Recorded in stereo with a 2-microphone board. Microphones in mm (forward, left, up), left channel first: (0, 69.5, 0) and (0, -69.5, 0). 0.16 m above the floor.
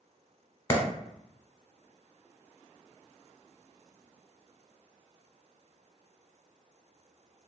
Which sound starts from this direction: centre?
A clap, at 0.7 s.